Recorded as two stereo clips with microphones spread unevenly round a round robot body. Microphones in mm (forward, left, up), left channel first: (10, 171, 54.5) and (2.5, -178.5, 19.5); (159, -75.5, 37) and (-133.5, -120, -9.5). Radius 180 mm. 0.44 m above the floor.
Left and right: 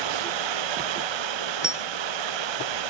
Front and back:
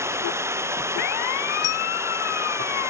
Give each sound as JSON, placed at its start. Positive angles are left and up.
{"t": 0.0, "sound": "running water", "azimuth_deg": -90}
{"t": 1.6, "sound": "a dropped coin", "azimuth_deg": -5}